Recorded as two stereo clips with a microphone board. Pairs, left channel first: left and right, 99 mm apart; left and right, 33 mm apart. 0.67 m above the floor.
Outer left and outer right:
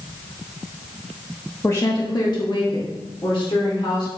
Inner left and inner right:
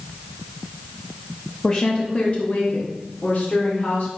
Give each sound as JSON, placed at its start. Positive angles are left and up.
{"t": 1.6, "sound": "a woman speaking", "side_deg": 25, "distance_m": 1.0}